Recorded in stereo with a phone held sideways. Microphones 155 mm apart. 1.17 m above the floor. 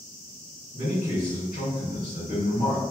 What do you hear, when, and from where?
0.7 s a man speaking: 70° left (ahead or behind), 1.5 m